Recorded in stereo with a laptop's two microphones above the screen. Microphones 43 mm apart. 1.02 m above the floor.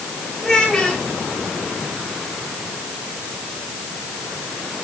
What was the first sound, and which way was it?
A child speaking, 5° left (ahead or behind).